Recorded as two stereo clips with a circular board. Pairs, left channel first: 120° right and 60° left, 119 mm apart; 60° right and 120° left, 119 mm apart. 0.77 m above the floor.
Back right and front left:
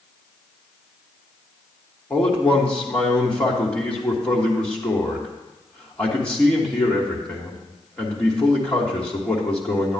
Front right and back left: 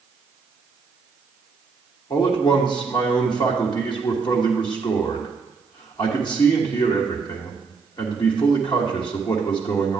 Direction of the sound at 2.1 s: 45° right.